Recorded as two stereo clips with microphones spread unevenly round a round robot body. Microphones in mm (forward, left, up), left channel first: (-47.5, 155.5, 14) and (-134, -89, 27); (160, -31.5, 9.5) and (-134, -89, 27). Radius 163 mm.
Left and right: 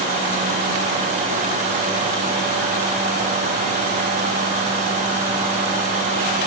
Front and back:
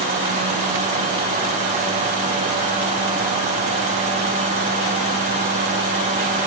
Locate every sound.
Only background noise.